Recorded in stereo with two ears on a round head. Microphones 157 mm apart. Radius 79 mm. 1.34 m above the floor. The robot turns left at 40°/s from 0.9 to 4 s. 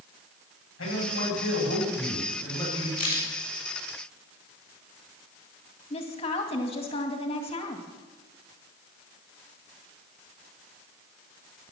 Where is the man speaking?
90° left, 8.5 m; by 2.9 s 10° left, 8.5 m.